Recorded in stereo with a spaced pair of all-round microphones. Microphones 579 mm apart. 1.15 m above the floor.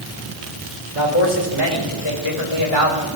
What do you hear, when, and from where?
0.9 s a man speaking: 55° left (ahead or behind), 4.5 m; by 3.1 s 50° left (ahead or behind), 6 m